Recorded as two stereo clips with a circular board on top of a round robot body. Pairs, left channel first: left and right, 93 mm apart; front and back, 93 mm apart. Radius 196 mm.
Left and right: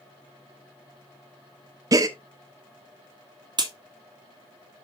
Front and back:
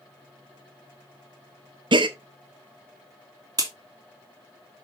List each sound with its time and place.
1.9 s a gasp: 145° right, 0.6 m
3.6 s a crack: 130° right, 2 m